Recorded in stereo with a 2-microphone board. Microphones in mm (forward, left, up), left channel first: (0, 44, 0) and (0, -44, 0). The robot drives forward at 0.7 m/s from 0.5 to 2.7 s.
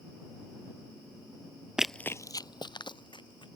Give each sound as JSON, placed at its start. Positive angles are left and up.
{"t": 1.8, "sound": "running footsteps", "side_deg": -10}